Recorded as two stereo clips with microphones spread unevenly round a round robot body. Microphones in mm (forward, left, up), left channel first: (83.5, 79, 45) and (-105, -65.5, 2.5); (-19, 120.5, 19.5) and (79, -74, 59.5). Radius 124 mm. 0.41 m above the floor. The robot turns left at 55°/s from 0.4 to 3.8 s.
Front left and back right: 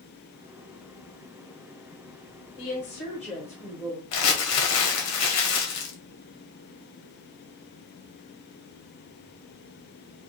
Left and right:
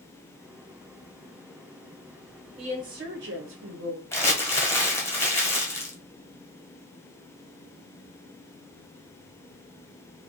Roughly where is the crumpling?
Ahead left.